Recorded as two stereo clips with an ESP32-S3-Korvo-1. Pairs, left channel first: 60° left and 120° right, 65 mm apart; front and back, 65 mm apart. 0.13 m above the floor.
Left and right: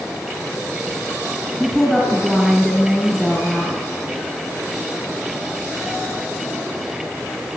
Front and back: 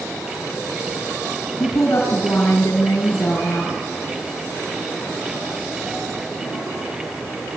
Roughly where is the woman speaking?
Ahead right.